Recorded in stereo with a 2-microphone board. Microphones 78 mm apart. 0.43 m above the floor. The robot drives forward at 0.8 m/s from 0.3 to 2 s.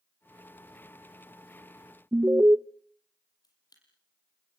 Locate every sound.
2.1 s an alarm: 30° right (ahead or behind), 0.6 m
3.4 s a camera shutter: 60° left (ahead or behind), 6.5 m